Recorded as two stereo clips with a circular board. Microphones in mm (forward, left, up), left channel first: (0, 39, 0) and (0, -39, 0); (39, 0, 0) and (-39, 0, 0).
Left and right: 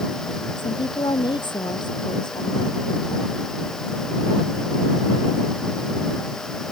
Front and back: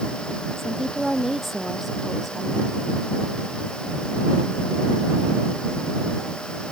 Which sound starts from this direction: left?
A woman speaking, at 0.6 s.